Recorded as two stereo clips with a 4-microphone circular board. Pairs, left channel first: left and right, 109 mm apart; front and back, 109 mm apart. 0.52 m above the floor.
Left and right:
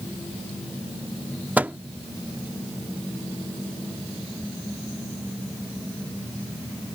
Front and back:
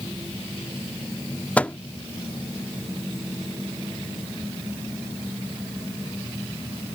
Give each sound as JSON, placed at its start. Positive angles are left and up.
{"t": 1.6, "sound": "a microwave", "azimuth_deg": -45}